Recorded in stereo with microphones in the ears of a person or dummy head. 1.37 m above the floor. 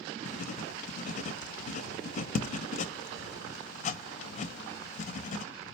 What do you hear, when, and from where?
0.2 s writing: 35° left (ahead or behind), 0.5 m